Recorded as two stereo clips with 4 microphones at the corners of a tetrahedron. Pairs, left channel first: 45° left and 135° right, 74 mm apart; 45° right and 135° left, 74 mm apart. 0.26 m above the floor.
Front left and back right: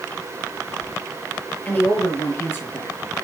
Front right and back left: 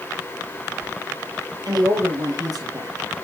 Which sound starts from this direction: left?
A woman speaking, at 1.6 s.